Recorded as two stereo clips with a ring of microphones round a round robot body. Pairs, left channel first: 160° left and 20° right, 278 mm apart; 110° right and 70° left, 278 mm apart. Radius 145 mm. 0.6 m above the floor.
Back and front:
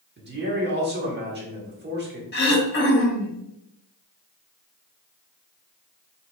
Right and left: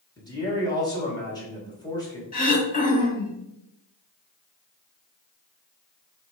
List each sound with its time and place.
0.2 s a man speaking: 45° right, 1.4 m
2.3 s throat clearing: 165° right, 1.0 m